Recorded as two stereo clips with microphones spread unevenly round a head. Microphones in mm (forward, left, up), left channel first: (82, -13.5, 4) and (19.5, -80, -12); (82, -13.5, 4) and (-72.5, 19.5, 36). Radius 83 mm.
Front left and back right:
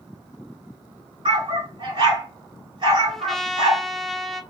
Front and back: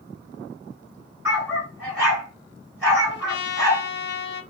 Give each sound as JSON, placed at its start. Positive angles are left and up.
{"t": 1.2, "sound": "a dog barking", "azimuth_deg": -130, "distance_m": 1.9}
{"t": 3.1, "sound": "a trumpet", "azimuth_deg": -40, "distance_m": 0.6}